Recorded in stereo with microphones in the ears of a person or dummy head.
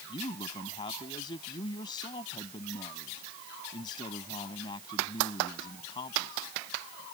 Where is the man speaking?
25° left (ahead or behind).